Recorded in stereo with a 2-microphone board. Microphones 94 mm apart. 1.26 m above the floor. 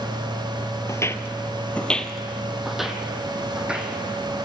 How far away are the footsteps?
About 1.4 m.